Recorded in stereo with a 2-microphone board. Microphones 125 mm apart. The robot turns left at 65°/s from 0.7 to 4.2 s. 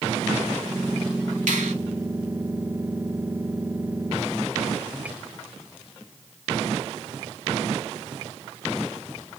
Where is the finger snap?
85° right, 1.5 m; by 1.7 s 65° right (ahead or behind), 1.5 m.